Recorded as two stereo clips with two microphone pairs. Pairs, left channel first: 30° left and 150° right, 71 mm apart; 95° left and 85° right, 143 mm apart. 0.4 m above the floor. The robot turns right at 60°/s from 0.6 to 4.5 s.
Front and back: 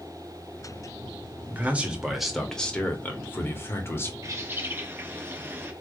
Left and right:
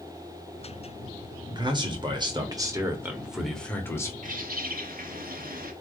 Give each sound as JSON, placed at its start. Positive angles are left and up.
{"t": 1.5, "sound": "a man speaking", "azimuth_deg": -110, "distance_m": 1.1}
{"t": 4.2, "sound": "a bird", "azimuth_deg": -110, "distance_m": 0.9}